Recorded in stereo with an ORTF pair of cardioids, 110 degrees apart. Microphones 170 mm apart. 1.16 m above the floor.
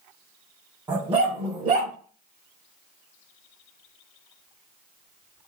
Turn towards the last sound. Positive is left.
turn(degrees=-55)